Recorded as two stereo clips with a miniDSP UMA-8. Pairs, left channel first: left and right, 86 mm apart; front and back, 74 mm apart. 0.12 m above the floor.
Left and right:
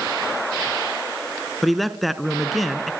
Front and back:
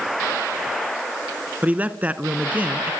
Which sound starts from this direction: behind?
A man speaking, at 1.6 s.